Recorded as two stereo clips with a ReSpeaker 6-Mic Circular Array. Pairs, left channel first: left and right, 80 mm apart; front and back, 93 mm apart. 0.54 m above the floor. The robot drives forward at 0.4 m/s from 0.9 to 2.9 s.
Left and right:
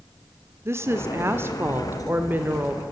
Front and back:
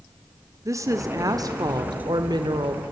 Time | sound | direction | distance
0.7 | a woman speaking | 135° right | 1.4 m